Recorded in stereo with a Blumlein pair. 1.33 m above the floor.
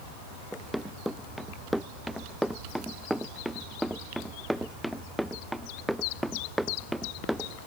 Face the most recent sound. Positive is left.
turn(degrees=0)